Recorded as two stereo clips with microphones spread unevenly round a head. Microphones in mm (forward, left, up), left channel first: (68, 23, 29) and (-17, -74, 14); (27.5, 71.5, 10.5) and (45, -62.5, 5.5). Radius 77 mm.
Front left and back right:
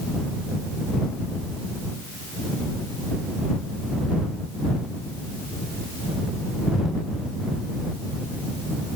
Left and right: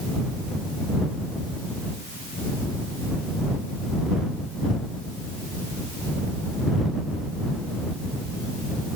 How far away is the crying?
I don't hear crying.